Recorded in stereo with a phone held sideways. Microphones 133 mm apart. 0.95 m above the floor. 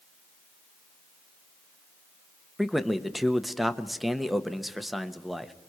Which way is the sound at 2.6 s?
Centre (ahead or behind).